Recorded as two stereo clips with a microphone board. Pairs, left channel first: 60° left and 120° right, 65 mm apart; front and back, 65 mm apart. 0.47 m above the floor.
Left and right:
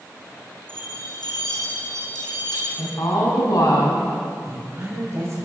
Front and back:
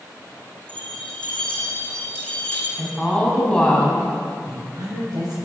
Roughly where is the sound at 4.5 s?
Behind.